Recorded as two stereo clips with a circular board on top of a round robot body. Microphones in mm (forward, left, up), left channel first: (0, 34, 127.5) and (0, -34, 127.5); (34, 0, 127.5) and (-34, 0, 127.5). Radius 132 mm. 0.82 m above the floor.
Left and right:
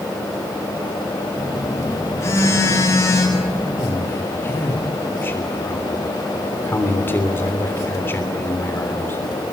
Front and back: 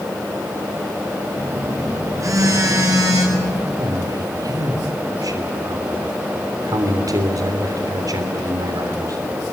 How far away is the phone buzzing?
About 8.5 m.